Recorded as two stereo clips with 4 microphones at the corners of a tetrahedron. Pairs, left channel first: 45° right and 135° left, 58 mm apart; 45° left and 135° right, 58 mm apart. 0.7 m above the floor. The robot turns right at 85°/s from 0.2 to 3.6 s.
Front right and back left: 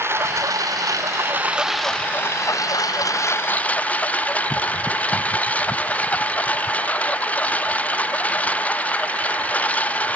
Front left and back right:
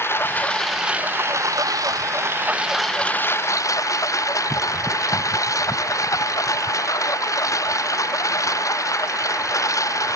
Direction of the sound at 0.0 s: 90° left.